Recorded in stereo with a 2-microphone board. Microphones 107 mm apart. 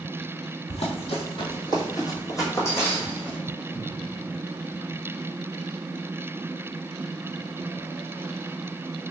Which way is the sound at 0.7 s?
65° left (ahead or behind).